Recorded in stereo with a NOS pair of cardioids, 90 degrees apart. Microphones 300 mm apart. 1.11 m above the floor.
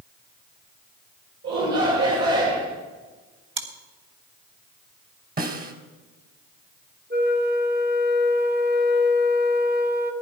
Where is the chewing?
40° right, 3 m.